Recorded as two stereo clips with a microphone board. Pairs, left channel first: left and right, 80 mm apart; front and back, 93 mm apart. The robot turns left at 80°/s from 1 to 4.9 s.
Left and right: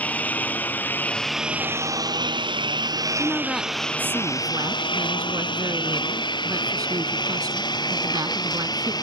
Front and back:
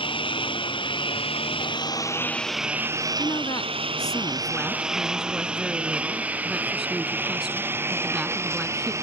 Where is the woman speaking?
35° left; by 8.9 s 100° right.